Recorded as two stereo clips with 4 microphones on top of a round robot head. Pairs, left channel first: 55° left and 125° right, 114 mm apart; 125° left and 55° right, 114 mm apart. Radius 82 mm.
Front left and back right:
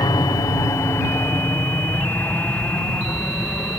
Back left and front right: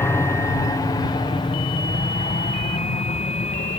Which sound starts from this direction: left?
An aircraft, at 0.0 s.